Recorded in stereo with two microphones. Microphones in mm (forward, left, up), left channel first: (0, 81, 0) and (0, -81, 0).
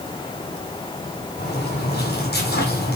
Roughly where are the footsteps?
Left.